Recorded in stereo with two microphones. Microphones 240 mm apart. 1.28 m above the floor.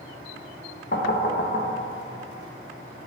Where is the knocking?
45° left (ahead or behind), 0.7 m.